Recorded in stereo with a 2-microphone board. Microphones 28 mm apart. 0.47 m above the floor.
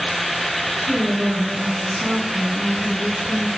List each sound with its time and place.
0.8 s a woman speaking: 60° right (ahead or behind), 4 m